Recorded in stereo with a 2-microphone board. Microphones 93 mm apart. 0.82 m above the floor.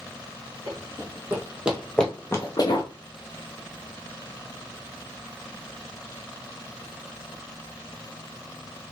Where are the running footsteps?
40° right (ahead or behind), 2.0 m; by 2.9 s 55° left (ahead or behind), 1.3 m.